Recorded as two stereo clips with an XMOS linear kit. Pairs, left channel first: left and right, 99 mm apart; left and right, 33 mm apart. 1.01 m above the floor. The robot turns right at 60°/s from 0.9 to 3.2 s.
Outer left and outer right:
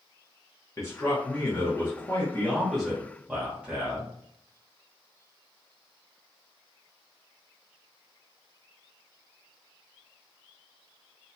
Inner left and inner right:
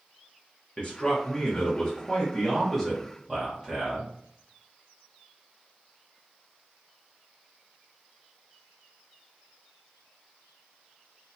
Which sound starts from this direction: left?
A man speaking, at 0.8 s.